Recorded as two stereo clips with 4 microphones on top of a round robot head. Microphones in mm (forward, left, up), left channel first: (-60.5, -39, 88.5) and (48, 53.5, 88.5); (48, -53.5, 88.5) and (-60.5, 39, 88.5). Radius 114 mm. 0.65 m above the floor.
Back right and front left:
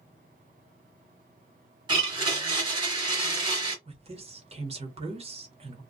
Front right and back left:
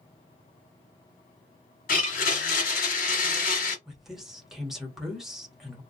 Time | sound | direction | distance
1.9 | a blender | 20° right | 1.3 m
3.9 | a woman speaking | 55° left | 1.5 m